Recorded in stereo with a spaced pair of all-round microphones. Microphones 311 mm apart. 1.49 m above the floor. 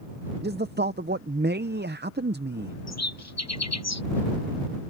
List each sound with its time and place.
0.4 s a man speaking: 35° right (ahead or behind)
2.9 s a bird: 55° left (ahead or behind)